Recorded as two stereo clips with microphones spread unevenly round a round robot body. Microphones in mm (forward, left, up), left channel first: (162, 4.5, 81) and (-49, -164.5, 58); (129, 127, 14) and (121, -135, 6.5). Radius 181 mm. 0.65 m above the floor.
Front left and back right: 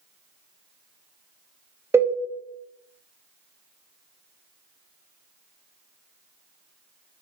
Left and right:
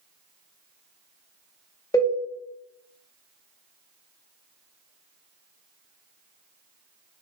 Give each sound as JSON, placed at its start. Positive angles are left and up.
{"t": 1.9, "sound": "a cowbell", "azimuth_deg": 155, "distance_m": 0.6}